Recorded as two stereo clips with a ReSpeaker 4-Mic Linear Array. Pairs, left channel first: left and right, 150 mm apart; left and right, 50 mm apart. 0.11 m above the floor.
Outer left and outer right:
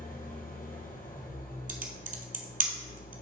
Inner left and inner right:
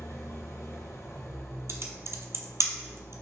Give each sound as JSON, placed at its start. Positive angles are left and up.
{"t": 0.0, "sound": "an engine running", "side_deg": 65, "distance_m": 1.2}
{"t": 1.7, "sound": "typing on a keyboard", "side_deg": -65, "distance_m": 0.8}